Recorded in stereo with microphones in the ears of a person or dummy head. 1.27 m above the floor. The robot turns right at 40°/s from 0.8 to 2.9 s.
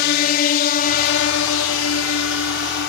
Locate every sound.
0.0 s a drone: 55° left (ahead or behind)